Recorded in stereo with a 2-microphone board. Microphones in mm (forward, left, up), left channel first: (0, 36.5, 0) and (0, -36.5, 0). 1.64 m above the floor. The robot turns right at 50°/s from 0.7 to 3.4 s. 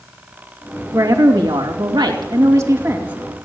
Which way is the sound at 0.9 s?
135° right.